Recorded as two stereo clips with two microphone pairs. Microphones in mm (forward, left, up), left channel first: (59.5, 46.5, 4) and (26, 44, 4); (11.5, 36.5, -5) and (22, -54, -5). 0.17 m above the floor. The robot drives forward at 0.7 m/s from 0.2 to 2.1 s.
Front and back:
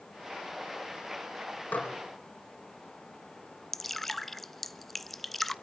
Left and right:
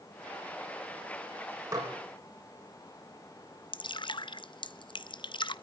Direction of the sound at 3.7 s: 80° left.